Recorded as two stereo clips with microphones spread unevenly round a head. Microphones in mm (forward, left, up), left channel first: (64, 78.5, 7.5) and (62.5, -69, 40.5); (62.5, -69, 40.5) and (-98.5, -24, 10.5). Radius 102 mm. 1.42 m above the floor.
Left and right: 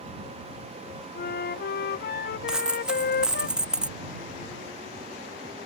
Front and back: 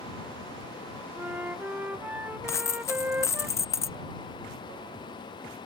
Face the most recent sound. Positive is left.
turn(degrees=-40)